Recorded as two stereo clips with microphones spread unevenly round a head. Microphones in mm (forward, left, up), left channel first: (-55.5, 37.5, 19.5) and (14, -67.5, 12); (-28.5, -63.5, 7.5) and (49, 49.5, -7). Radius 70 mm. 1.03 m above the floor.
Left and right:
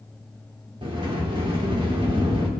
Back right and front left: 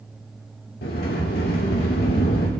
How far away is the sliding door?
About 2.5 m.